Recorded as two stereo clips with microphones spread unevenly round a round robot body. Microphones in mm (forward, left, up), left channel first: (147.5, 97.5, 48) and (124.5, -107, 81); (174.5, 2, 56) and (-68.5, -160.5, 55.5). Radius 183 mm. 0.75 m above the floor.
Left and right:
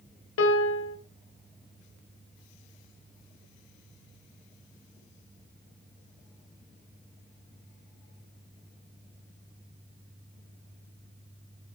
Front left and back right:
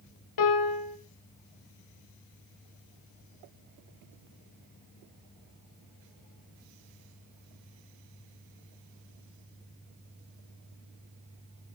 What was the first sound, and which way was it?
A piano, 70° left.